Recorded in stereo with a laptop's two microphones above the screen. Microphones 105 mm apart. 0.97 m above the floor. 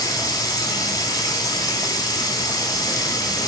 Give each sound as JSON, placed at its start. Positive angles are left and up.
{"t": 0.0, "sound": "running water", "side_deg": 35, "distance_m": 4.0}